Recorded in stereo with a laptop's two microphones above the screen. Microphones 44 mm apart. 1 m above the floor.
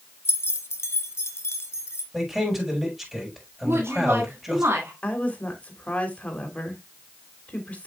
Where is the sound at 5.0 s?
30° left (ahead or behind), 3 m.